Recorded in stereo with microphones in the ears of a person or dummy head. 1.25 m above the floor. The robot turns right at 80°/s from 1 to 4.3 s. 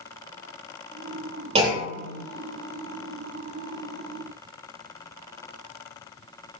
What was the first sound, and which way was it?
A clunk, 35° right.